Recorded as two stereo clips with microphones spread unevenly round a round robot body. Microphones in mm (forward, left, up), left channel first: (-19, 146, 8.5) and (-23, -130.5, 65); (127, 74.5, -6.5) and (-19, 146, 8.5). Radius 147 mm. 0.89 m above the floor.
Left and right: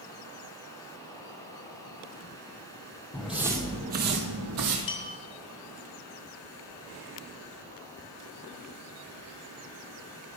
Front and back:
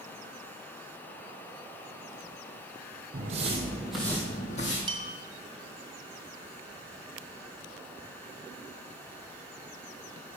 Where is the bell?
95° left, 3 m.